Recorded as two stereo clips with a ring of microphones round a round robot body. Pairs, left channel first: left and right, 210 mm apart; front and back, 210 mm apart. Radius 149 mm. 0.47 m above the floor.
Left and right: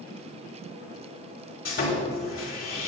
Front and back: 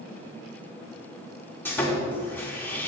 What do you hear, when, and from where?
1.6 s sawing: 80° left, 3.5 m